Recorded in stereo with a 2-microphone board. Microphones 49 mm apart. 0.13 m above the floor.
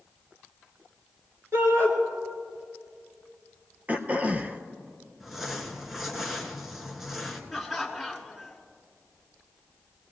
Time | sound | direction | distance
1.5 | a shout | 60° right (ahead or behind) | 3 m
3.9 | throat clearing | 30° right (ahead or behind) | 0.8 m
5.2 | crumpling | 5° right (ahead or behind) | 1.4 m
7.5 | laughter | 5° right (ahead or behind) | 1.4 m